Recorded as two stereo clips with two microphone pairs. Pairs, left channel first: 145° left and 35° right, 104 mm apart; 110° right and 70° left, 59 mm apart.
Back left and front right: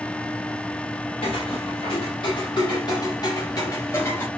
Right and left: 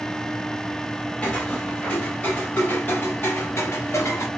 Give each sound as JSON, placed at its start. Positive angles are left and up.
{"t": 1.2, "sound": "footsteps", "azimuth_deg": 175, "distance_m": 2.5}